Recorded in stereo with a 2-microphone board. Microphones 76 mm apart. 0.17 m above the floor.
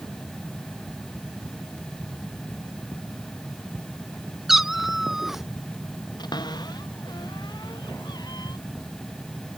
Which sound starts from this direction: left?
A cupboard door, at 6.2 s.